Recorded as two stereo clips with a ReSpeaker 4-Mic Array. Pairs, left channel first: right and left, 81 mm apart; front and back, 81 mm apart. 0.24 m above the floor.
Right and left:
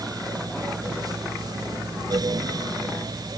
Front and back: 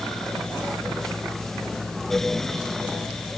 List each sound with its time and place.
Only background noise.